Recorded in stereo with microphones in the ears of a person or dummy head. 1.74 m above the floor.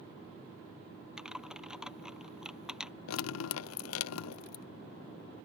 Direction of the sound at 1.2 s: 5° right (ahead or behind).